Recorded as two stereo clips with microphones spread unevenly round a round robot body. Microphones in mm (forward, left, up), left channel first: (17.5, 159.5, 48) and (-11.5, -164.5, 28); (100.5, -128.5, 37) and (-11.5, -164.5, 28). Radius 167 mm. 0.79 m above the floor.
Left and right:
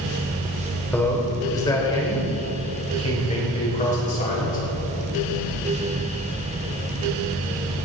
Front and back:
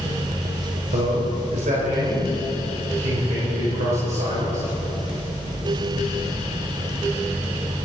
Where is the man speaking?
170° left, 2.5 m; by 4.7 s 150° left, 4.5 m.